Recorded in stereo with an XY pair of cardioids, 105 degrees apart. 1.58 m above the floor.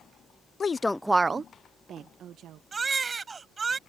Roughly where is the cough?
No cough in this recording.